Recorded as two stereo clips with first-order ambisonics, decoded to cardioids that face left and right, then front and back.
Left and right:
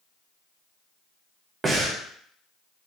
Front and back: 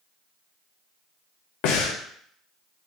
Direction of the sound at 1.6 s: 20° right.